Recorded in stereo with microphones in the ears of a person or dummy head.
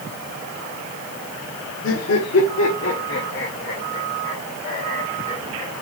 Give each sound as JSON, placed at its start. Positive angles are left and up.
{"t": 1.8, "sound": "laughter", "side_deg": 70, "distance_m": 1.1}